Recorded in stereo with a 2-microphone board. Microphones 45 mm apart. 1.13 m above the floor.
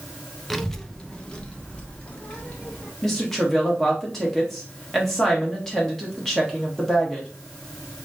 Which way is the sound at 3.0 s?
10° left (ahead or behind).